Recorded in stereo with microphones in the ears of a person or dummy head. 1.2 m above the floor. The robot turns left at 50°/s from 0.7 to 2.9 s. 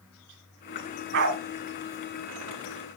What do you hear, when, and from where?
1.1 s a dog barking: 65° right (ahead or behind), 2.5 m; by 1.4 s 70° right (ahead or behind), 2.5 m